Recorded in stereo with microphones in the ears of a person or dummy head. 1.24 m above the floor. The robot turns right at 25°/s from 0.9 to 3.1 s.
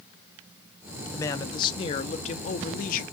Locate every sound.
1.1 s a man speaking: 20° left, 0.7 m; by 3.0 s 65° left, 0.7 m